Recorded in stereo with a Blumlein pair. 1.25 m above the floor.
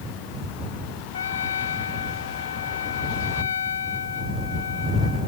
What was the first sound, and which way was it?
A trumpet, 65° left.